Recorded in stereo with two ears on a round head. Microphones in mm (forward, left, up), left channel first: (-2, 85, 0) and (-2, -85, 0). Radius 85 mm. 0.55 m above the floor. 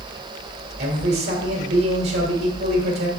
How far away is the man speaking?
About 1.9 m.